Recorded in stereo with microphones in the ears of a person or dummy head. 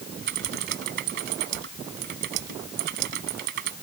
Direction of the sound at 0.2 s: 65° right (ahead or behind).